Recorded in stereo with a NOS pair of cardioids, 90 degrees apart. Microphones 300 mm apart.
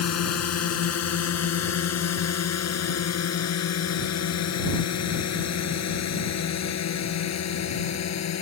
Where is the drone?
55° left; by 8.4 s 60° left.